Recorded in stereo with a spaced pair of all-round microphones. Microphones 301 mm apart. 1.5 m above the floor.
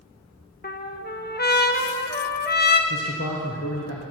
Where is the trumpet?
35° left (ahead or behind), 0.6 m.